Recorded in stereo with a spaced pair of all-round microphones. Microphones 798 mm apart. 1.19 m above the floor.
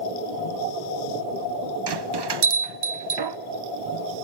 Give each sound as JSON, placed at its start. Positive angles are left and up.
{"t": 1.9, "sound": "a bell", "side_deg": -35, "distance_m": 0.5}